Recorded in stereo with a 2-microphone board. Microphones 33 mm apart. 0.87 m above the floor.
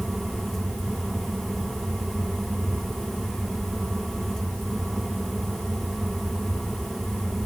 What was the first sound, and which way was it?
Only background noise.